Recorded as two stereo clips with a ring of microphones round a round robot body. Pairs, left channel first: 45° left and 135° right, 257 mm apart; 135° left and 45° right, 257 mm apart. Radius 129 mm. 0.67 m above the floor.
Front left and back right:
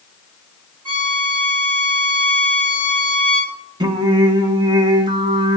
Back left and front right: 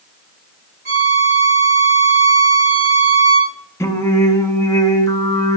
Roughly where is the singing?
Behind.